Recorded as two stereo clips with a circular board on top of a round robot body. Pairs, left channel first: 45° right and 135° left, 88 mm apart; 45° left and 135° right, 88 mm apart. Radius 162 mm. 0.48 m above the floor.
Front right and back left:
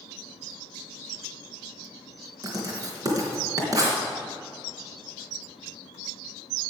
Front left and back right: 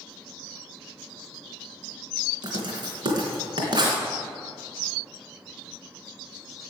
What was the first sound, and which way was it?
Writing, 175° right.